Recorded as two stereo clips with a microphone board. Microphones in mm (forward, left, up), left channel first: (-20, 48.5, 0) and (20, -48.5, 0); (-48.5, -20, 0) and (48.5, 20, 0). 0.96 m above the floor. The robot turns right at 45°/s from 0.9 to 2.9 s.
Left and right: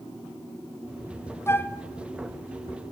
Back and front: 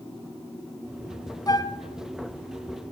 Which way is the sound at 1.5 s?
165° left.